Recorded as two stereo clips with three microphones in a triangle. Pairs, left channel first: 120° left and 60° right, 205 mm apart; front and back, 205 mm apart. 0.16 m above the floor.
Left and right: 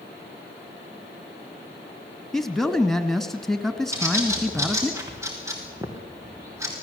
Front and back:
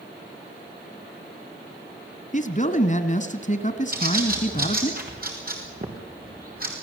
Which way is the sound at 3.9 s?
135° right.